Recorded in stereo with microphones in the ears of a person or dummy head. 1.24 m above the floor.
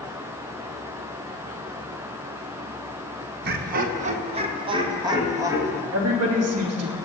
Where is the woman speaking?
80° right, 2.5 m.